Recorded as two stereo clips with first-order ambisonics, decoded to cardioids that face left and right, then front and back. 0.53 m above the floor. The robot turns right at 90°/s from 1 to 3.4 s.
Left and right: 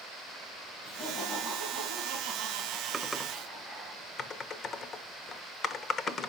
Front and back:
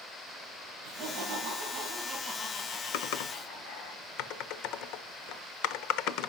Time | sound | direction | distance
0.8 | laughter | 150° left | 4 m
2.9 | typing on a keyboard | 15° right | 0.7 m